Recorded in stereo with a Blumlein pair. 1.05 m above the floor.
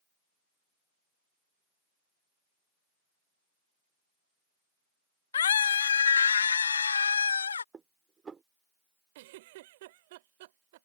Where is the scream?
65° left; by 7.6 s 75° left.